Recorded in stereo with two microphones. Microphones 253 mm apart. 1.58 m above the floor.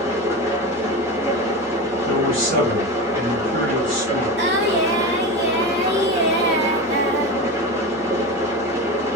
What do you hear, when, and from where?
0.0 s an engine running: 10° right (ahead or behind), 1.1 m
2.1 s a man speaking: 55° right (ahead or behind), 1.9 m
4.4 s singing: 45° right (ahead or behind), 0.9 m